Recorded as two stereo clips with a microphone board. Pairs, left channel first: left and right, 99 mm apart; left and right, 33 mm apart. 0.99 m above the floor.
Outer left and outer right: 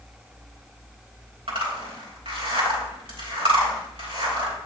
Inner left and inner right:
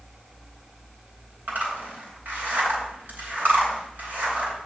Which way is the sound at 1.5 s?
75° right (ahead or behind).